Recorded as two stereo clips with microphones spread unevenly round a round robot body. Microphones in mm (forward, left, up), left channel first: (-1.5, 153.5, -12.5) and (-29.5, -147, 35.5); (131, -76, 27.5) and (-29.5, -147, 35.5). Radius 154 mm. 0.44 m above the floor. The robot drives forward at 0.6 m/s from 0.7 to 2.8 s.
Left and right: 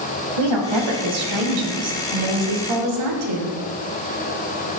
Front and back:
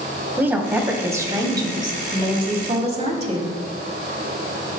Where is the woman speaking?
80° right, 3 m; by 3.5 s 105° right, 3 m.